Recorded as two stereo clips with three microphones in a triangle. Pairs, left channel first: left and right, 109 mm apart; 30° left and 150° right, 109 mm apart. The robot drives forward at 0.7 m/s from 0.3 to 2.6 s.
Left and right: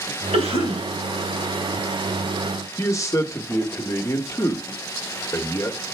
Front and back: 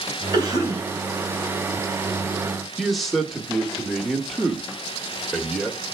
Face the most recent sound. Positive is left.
turn(degrees=120)